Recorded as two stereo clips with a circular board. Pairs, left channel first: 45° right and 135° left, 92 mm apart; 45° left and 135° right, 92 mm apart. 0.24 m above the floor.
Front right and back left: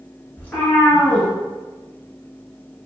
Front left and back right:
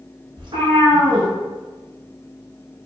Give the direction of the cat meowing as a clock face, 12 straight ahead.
4 o'clock.